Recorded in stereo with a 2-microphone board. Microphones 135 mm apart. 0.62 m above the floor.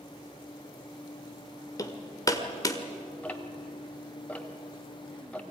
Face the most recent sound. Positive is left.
turn(degrees=10)  # may be behind; listen again after turning